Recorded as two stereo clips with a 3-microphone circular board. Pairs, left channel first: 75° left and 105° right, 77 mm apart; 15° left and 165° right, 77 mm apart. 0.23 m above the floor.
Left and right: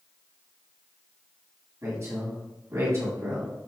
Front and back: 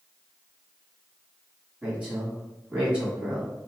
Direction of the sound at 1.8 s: 90° right.